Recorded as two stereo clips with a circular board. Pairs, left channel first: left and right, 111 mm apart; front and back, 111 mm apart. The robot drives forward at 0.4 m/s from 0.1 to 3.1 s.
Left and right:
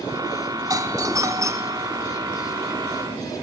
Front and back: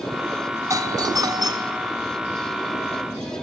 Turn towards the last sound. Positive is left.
turn(degrees=-155)